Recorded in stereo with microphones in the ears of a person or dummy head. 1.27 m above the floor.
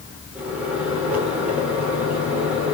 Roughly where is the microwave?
Centre.